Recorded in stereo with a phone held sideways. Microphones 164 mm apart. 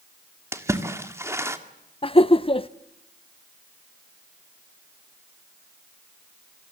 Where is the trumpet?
No trumpet in this recording.